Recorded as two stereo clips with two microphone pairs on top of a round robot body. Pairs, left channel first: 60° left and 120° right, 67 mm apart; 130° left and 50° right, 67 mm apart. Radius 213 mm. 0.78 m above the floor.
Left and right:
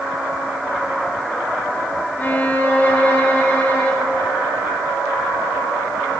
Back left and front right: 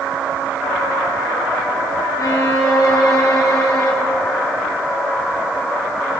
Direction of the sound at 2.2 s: 120° left.